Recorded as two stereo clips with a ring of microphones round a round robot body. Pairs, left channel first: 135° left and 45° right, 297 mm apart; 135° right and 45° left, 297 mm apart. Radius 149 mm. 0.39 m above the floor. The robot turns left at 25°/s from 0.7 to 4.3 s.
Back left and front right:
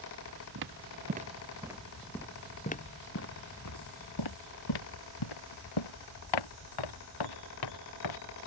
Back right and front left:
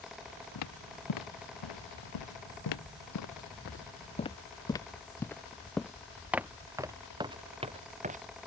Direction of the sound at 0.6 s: 95° right.